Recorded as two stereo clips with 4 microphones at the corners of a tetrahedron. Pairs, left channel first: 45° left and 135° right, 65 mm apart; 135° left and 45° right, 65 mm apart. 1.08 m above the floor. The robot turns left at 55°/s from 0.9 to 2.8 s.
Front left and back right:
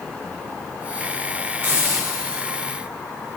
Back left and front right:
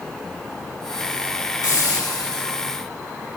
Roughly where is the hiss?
Behind.